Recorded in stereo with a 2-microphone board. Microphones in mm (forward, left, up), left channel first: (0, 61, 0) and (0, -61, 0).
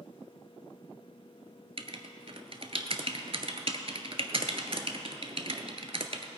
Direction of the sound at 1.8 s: 55° right (ahead or behind).